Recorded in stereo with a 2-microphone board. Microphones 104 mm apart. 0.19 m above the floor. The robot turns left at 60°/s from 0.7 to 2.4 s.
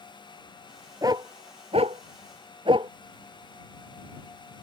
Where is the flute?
I don't hear a flute.